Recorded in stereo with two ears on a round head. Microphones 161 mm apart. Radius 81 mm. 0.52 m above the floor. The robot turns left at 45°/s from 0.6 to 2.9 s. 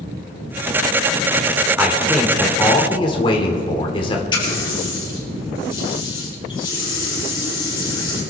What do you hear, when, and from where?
1.8 s a man speaking: 165° right, 1.6 m; by 4.2 s 140° left, 1.6 m
4.3 s a running tap: 25° left (ahead or behind), 7 m